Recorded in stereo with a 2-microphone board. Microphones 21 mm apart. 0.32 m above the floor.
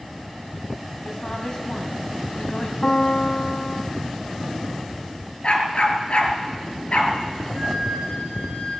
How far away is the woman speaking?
About 2.0 m.